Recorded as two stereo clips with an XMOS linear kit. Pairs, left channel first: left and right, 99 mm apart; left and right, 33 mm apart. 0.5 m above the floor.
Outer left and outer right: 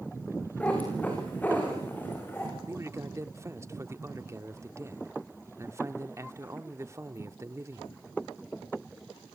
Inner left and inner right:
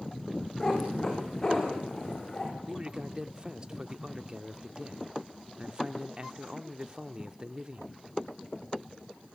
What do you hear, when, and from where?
0.6 s a cat meowing: 15° left (ahead or behind), 8 m; by 2.5 s 20° left (ahead or behind), 7.5 m
2.7 s a man speaking: 30° right (ahead or behind), 0.9 m